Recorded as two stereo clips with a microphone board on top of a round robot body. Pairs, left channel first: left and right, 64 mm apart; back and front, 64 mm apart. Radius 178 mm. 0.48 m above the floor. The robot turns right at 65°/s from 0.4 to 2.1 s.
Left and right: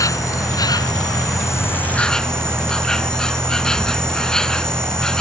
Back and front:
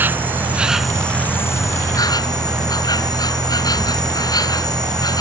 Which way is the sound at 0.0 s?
60° left.